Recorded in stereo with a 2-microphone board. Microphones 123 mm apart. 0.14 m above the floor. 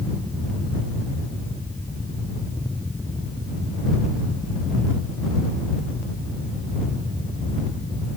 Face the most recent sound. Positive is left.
No sound to turn to.